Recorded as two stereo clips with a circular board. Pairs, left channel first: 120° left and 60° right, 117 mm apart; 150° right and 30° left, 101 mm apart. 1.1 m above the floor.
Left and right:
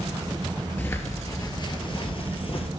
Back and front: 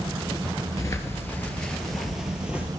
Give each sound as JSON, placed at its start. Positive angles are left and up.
{"t": 0.8, "sound": "footsteps", "azimuth_deg": 180, "distance_m": 1.3}